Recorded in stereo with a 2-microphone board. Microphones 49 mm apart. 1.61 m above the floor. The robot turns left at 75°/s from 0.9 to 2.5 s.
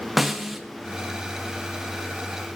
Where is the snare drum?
Centre (ahead or behind), 0.7 m.